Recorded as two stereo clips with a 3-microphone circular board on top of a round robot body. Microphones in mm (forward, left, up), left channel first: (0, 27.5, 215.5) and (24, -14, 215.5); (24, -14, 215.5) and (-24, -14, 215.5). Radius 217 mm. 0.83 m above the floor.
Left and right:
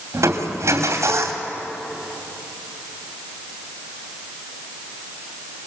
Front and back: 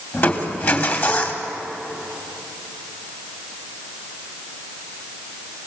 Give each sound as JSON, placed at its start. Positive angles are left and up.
{"t": 0.1, "sound": "crushing", "azimuth_deg": -45, "distance_m": 2.5}